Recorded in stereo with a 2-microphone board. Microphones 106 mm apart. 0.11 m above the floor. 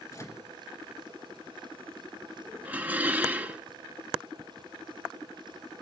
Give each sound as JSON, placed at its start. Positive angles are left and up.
{"t": 0.1, "sound": "a microwave", "side_deg": 30, "distance_m": 1.2}
{"t": 2.6, "sound": "dishes clattering", "side_deg": -15, "distance_m": 0.7}